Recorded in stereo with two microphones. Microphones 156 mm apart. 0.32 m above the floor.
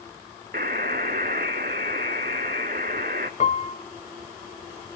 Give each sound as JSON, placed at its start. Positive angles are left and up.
{"t": 0.5, "sound": "a buzzer", "side_deg": -75, "distance_m": 0.9}
{"t": 3.4, "sound": "a piano", "side_deg": 50, "distance_m": 0.7}